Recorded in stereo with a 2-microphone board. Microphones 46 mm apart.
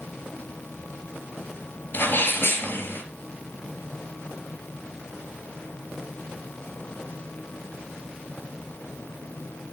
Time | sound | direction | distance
1.9 | a sneeze | 45° left (ahead or behind) | 3.5 m